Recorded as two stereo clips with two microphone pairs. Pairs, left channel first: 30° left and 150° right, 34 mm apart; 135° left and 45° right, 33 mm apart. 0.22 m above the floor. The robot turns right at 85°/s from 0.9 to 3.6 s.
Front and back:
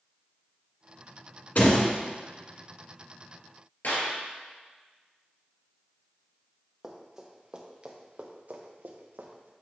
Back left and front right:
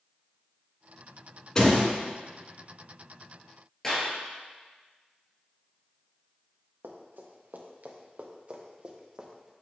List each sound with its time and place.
1.6 s a door slam: 65° left, 1.9 m; by 1.9 s 95° left, 1.9 m
3.8 s a clap: 55° left, 2.5 m
6.8 s running footsteps: 70° right, 1.8 m; by 9.5 s 130° right, 1.6 m